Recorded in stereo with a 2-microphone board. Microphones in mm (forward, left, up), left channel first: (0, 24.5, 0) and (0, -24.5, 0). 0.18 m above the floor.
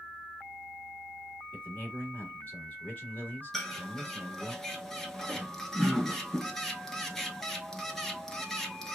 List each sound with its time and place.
1.5 s a man speaking: 35° left (ahead or behind), 1.7 m
3.5 s a bird: 10° left (ahead or behind), 0.7 m